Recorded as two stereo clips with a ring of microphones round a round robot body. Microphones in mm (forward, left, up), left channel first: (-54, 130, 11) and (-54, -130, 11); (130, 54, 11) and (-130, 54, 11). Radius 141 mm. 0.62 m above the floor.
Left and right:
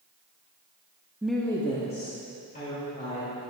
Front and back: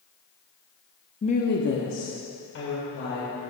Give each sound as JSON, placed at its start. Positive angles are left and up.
{"t": 1.2, "sound": "a woman speaking", "azimuth_deg": -15, "distance_m": 0.7}